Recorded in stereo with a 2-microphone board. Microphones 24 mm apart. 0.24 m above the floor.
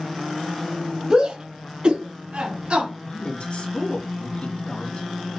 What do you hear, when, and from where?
1.1 s a shout: 45° right (ahead or behind), 1.7 m; by 2.9 s 60° right (ahead or behind), 3 m
3.0 s a woman speaking: 60° left (ahead or behind), 2.5 m